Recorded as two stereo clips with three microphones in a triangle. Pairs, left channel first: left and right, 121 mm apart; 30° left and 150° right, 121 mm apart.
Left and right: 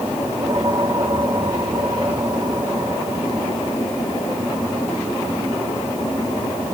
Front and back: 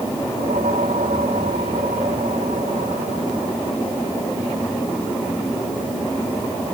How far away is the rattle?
No rattle in this recording.